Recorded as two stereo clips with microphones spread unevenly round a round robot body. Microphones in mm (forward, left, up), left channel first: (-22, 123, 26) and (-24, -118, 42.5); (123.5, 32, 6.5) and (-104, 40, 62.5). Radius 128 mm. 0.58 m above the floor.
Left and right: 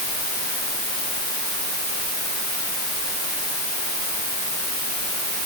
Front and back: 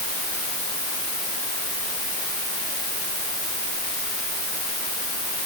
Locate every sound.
Only background noise.